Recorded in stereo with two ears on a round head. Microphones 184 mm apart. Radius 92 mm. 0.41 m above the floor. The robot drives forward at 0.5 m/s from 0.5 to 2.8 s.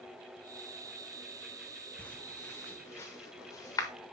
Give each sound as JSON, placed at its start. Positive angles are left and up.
{"t": 2.0, "sound": "footsteps", "side_deg": 5, "distance_m": 1.6}